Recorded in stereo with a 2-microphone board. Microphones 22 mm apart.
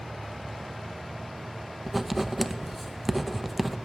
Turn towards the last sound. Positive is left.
turn(degrees=0)  # may be behind; listen again after turning